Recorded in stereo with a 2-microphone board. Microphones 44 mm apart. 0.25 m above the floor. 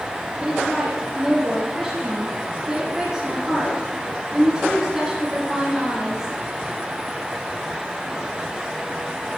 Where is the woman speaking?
5° right (ahead or behind), 4.5 m.